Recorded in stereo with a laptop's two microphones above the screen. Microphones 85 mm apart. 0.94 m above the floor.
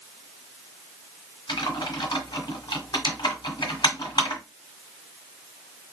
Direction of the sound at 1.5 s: 60° left (ahead or behind).